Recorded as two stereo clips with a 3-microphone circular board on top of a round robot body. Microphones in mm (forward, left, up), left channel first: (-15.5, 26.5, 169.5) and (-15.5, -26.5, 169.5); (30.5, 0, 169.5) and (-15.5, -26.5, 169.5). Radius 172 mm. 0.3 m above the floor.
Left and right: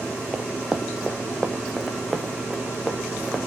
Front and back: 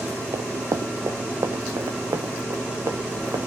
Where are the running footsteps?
165° right, 0.6 m; by 3.5 s straight behind, 3.5 m.